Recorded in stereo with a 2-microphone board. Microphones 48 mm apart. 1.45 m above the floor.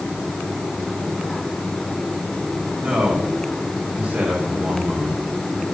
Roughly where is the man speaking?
Right.